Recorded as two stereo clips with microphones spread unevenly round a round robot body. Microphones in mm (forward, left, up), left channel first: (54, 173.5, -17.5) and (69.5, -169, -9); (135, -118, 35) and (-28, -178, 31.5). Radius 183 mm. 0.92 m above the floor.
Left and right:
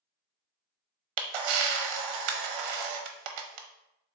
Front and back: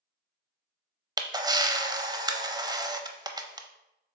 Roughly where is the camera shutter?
Right.